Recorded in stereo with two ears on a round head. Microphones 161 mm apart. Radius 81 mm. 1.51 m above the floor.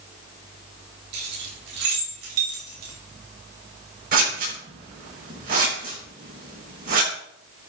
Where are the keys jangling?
70° right (ahead or behind), 5 m; by 2.9 s 80° right, 5 m.